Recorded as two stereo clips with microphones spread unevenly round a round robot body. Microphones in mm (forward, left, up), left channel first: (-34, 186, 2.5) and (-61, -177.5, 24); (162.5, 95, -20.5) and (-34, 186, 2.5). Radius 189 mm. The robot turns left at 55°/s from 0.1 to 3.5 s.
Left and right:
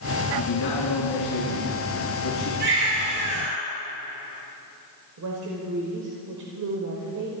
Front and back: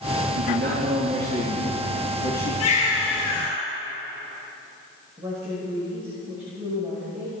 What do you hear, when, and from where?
0.3 s a man speaking: 130° left, 4.5 m; by 2.5 s 15° left, 4.5 m
2.6 s a baby crying: 25° right, 4.5 m; by 3.6 s 75° right, 4.5 m
5.2 s a woman speaking: 130° right, 2.5 m